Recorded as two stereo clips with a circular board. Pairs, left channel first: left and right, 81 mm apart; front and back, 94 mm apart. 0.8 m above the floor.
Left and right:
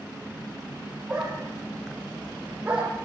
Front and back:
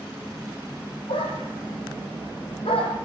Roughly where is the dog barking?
Ahead.